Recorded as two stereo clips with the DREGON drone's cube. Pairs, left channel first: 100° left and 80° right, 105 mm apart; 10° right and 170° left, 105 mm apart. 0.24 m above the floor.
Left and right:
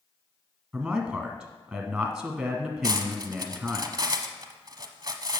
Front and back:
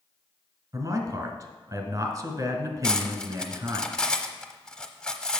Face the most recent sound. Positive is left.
turn(degrees=-85)